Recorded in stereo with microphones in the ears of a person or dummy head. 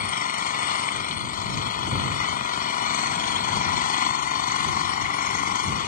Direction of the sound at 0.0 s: 50° left (ahead or behind).